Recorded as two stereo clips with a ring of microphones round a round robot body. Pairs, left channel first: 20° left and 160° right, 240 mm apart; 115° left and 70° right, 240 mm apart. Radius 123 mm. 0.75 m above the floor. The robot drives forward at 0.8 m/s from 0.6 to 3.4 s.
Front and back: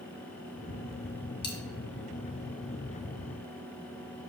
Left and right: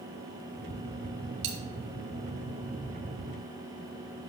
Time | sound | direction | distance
1.4 | a dropped coin | 50° right | 1.6 m